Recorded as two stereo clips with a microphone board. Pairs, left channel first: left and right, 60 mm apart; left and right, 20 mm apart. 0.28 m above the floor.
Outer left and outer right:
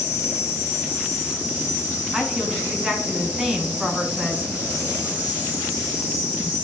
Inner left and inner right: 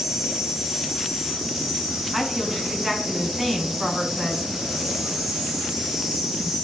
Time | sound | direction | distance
0.0 | an insect | 25° right (ahead or behind) | 2.5 m
2.1 | a woman speaking | 10° right (ahead or behind) | 2 m